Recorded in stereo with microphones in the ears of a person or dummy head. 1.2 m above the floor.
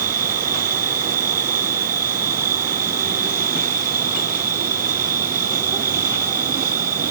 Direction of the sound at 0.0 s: 10° right (ahead or behind).